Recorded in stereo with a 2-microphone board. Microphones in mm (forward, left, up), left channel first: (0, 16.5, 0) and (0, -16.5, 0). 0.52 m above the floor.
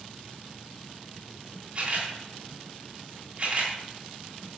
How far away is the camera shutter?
About 2.5 m.